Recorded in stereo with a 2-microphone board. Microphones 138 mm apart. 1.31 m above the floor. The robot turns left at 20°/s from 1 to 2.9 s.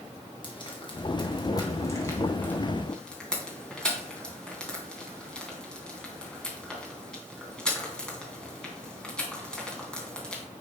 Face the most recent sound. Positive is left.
turn(degrees=5)  # may be behind; listen again after turning